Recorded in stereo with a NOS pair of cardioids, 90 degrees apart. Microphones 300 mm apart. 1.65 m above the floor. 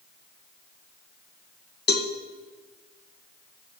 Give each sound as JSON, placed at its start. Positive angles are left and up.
{"t": 1.9, "sound": "a cowbell", "azimuth_deg": 35, "distance_m": 1.8}